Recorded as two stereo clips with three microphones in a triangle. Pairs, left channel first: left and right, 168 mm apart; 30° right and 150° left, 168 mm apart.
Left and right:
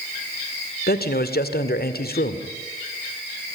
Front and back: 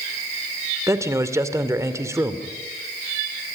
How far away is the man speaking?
About 2 m.